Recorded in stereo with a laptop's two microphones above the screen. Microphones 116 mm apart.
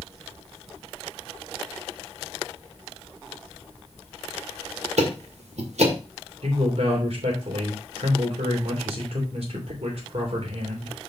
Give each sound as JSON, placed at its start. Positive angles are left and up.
{"t": 5.0, "sound": "ticking", "side_deg": -75, "distance_m": 1.7}
{"t": 6.4, "sound": "a man speaking", "side_deg": -60, "distance_m": 2.5}